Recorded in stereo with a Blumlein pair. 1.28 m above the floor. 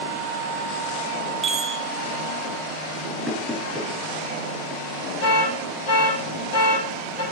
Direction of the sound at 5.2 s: 45° left.